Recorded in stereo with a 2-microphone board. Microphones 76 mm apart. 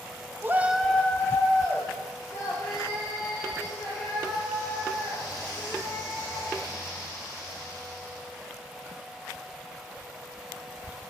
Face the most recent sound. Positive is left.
turn(degrees=55)  # may be behind; listen again after turning